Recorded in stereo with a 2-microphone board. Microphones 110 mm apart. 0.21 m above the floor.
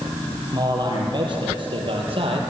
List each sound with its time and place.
0.5 s a man speaking: 40° right (ahead or behind), 5 m; by 2.4 s 55° right (ahead or behind), 4.5 m